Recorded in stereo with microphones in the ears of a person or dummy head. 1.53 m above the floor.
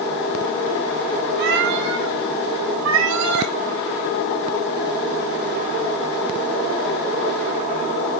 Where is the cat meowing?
60° right (ahead or behind), 3 m; by 3.5 s 80° right, 4.5 m.